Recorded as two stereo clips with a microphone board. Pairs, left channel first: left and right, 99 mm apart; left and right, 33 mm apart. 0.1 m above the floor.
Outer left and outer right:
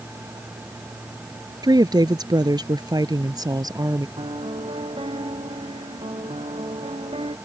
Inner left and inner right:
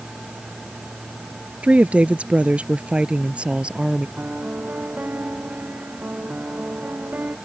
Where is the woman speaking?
40° right (ahead or behind).